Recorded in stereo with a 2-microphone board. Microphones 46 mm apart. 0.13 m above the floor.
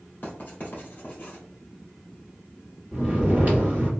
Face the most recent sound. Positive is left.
turn(degrees=-35)  # may be behind; listen again after turning